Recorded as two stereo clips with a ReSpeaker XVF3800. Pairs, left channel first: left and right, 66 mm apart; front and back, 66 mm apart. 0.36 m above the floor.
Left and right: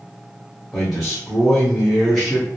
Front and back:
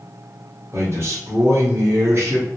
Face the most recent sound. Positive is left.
turn(degrees=180)